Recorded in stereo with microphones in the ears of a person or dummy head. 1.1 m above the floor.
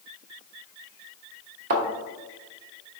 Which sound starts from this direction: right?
A thud, at 1.7 s.